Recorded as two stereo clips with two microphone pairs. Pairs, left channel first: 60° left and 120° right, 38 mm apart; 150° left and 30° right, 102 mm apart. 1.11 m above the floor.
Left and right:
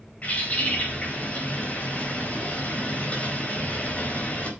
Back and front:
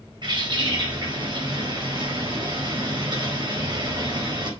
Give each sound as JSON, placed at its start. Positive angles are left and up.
{"t": 0.2, "sound": "a bird", "azimuth_deg": 5, "distance_m": 4.5}